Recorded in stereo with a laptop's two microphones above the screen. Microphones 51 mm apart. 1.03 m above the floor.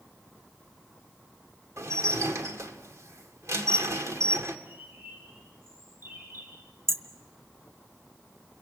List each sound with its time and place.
1.8 s dishes clattering: 70° right (ahead or behind), 1.7 m
4.7 s a bird: 45° right (ahead or behind), 4 m
6.9 s hammering: 60° right (ahead or behind), 1.4 m